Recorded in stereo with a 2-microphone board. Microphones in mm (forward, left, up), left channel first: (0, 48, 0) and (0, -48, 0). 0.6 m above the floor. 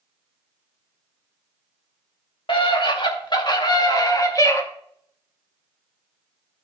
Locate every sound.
2.5 s a scream: 60° left (ahead or behind), 2.5 m; by 4.6 s 30° left (ahead or behind), 1.7 m